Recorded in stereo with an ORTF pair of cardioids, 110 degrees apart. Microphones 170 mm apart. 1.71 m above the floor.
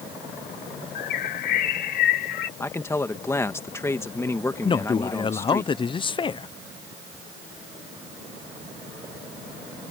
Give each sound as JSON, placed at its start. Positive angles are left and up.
{"t": 0.9, "sound": "a bird", "azimuth_deg": 65}
{"t": 2.6, "sound": "a man speaking", "azimuth_deg": 15}
{"t": 4.6, "sound": "a man speaking", "azimuth_deg": 30}